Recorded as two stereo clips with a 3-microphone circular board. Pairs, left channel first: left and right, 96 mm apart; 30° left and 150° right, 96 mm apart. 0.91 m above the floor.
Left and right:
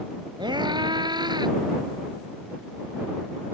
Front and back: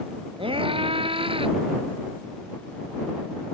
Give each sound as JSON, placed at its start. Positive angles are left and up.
{"t": 0.4, "sound": "a scream", "azimuth_deg": -130}